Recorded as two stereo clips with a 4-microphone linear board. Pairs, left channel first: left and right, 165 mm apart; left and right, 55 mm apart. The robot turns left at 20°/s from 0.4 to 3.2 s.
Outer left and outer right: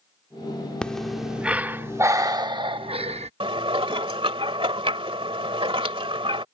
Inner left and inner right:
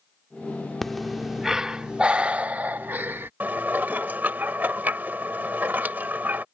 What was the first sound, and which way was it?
Breathing, 5° left.